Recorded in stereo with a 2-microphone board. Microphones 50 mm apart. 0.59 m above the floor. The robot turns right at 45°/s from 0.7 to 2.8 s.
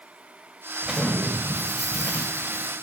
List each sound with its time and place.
0.8 s an explosion: 15° right, 1.3 m; by 2.7 s 70° left, 1.3 m